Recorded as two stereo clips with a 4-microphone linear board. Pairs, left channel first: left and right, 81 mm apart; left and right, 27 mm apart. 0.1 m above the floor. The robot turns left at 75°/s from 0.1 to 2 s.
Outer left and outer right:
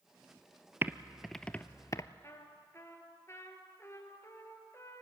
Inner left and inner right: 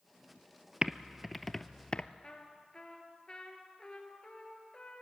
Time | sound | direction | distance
0.8 | typing on a keyboard | 30° right (ahead or behind) | 0.6 m
2.2 | a trumpet | 35° left (ahead or behind) | 2 m